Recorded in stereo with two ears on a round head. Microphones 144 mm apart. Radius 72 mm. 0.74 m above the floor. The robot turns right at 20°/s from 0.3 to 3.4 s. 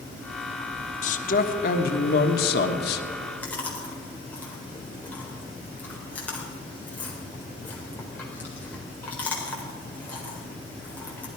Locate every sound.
1.0 s a man speaking: 50° left, 1.4 m; by 3.0 s 95° left, 1.4 m
3.4 s chewing: 10° left (ahead or behind), 3.5 m